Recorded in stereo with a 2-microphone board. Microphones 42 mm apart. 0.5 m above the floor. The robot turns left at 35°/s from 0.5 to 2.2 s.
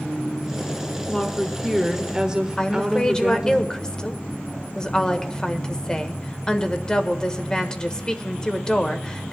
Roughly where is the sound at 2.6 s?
Left.